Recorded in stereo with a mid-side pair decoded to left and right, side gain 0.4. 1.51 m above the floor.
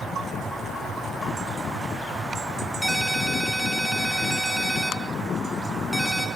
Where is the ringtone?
Straight ahead, 6.5 m.